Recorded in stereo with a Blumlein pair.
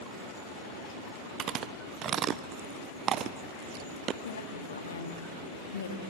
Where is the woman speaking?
70° left, 2 m.